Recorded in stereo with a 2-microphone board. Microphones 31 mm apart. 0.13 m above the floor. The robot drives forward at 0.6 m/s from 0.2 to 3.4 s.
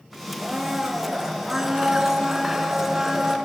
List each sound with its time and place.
0.4 s a blender: 5° right (ahead or behind), 1.5 m; by 3.4 s 10° right (ahead or behind), 0.9 m